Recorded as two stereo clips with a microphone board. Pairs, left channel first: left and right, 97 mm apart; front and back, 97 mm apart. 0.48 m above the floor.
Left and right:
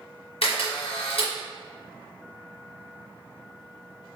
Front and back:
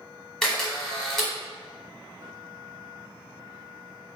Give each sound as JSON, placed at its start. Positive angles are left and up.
{"t": 0.4, "sound": "a camera shutter", "azimuth_deg": 85, "distance_m": 1.1}